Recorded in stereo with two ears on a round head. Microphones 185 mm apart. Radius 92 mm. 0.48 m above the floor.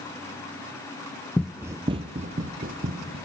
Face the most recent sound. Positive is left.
turn(degrees=-45)  # may be behind; listen again after turning